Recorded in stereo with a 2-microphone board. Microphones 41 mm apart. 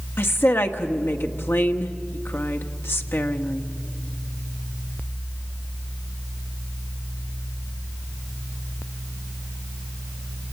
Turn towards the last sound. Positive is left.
turn(degrees=60)  # may be behind; listen again after turning